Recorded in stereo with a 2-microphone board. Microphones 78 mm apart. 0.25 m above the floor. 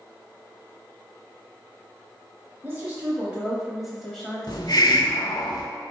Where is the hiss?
60° left (ahead or behind), 0.6 m.